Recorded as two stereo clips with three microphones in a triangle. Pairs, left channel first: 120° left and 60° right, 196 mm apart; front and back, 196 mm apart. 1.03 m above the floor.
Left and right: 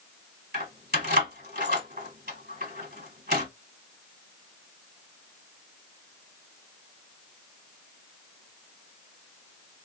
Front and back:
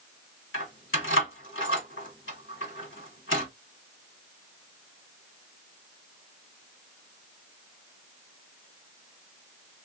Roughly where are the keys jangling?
Ahead.